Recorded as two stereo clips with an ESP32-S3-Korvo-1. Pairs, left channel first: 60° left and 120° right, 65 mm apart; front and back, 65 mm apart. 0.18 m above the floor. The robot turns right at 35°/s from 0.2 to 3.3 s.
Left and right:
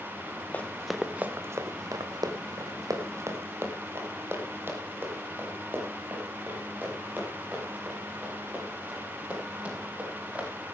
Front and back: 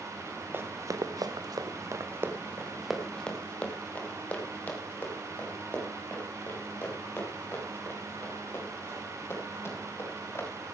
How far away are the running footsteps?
About 1.5 m.